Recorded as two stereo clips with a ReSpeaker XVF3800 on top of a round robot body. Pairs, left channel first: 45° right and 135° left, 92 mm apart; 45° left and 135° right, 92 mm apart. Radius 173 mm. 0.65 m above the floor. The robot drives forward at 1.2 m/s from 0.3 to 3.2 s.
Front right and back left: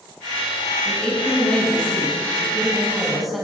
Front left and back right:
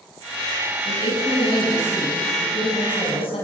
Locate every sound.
0.8 s a woman speaking: 30° left, 9 m; by 3.5 s 45° left, 7 m